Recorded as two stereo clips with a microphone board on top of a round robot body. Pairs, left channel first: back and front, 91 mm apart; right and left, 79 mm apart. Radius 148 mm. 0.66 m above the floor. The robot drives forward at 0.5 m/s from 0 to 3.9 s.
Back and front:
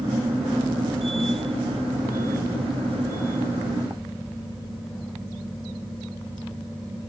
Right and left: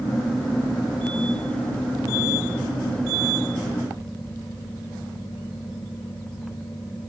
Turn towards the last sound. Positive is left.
No sound to turn to.